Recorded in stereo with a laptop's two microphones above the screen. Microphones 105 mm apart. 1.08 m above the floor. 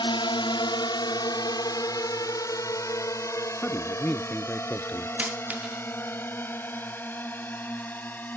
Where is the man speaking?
15° left (ahead or behind).